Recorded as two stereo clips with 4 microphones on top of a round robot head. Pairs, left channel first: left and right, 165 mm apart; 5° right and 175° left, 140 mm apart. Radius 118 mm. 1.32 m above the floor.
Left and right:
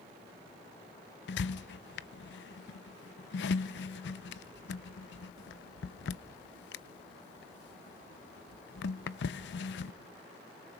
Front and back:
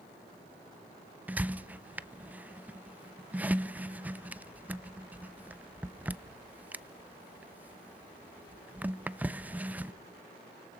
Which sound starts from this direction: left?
A squeak, at 1.3 s.